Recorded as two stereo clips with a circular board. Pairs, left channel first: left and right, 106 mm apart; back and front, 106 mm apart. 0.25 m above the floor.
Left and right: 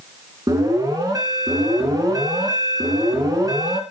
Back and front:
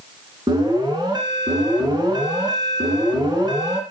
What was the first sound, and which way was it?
An alarm, 40° right.